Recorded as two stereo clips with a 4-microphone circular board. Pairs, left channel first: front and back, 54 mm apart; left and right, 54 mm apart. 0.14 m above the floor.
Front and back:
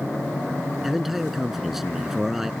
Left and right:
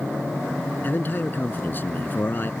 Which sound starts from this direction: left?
A man speaking, at 0.8 s.